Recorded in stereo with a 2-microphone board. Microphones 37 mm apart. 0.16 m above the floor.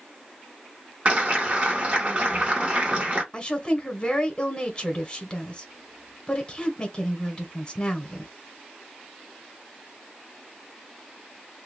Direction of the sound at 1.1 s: 35° right (ahead or behind).